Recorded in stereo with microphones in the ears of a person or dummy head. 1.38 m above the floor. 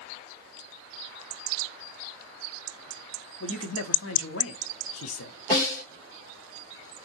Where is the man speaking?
70° left (ahead or behind), 0.6 m.